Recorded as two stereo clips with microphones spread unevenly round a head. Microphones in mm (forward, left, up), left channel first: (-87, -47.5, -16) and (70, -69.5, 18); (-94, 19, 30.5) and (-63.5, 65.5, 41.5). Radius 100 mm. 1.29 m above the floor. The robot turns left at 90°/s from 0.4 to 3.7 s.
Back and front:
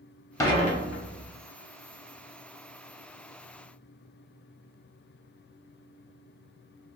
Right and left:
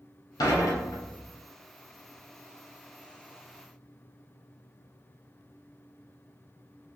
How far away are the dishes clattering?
About 0.7 m.